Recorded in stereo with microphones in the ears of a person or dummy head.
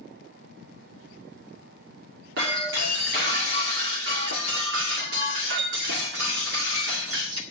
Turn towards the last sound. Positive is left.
turn(degrees=-60)  # may be behind; listen again after turning